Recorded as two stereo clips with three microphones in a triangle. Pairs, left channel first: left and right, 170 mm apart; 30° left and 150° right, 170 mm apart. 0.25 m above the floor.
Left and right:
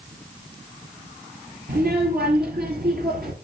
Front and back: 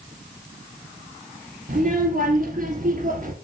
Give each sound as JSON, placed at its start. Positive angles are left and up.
{"t": 1.7, "sound": "a child speaking", "azimuth_deg": -110, "distance_m": 4.0}